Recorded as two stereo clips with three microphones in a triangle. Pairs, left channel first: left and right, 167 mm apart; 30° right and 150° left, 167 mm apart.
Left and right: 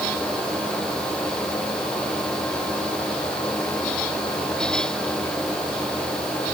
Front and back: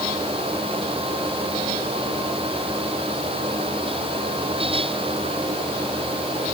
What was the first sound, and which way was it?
Only background noise.